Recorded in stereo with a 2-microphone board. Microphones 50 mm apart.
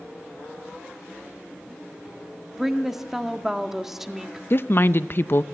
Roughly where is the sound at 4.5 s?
Left.